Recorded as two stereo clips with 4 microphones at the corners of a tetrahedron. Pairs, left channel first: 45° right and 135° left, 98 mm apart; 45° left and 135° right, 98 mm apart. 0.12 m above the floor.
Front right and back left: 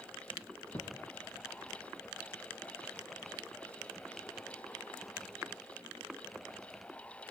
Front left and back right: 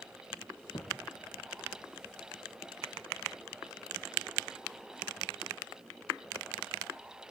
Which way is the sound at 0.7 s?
10° left.